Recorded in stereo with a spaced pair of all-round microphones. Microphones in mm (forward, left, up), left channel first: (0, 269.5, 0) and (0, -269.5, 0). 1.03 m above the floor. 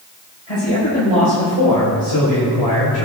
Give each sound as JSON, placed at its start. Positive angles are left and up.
{"t": 0.5, "sound": "a man speaking", "side_deg": 65, "distance_m": 5.5}